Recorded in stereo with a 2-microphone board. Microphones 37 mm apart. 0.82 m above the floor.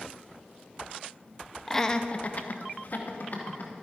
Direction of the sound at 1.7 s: 10° left (ahead or behind).